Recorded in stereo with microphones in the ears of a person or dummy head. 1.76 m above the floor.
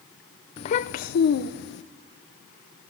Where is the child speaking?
25° left (ahead or behind), 0.6 m; by 1.8 s 60° left (ahead or behind), 1.2 m.